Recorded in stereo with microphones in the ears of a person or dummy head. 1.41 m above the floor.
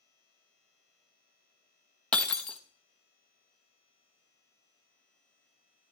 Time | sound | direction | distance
2.1 | breaking glass | 10° left (ahead or behind) | 0.9 m